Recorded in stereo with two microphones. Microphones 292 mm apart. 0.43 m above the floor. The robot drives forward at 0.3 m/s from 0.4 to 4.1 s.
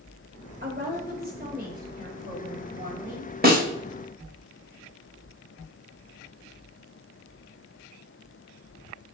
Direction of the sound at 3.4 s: 30° right (ahead or behind).